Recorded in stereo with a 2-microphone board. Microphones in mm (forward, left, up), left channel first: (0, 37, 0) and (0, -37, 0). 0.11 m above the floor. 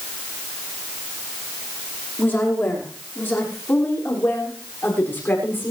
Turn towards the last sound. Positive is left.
turn(degrees=30)  # may be behind; listen again after turning